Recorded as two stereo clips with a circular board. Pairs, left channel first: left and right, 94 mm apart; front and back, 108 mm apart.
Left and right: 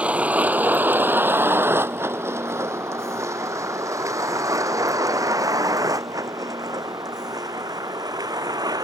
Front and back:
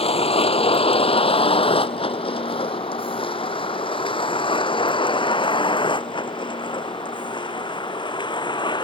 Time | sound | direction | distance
0.0 | a vehicle | 15° right | ?